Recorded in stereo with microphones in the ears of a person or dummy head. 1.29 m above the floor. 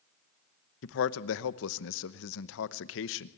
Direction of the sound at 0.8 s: 75° left (ahead or behind).